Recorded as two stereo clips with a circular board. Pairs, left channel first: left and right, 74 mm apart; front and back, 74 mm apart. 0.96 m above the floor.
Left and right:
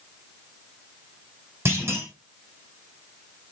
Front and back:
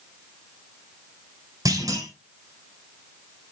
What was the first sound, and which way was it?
A clunk, 145° right.